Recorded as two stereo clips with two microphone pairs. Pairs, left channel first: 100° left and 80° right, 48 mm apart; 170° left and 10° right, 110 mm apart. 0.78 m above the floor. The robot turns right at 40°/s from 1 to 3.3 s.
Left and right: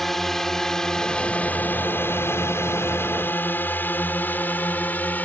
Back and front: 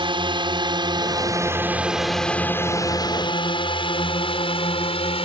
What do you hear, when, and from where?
0.0 s a drone: 20° left; by 5.2 s 150° left